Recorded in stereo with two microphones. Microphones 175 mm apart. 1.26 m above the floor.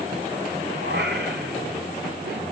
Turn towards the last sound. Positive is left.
turn(degrees=-85)